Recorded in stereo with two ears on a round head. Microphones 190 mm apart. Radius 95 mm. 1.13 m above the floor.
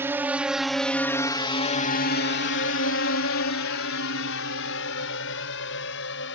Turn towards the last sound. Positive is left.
turn(degrees=60)  # may be behind; listen again after turning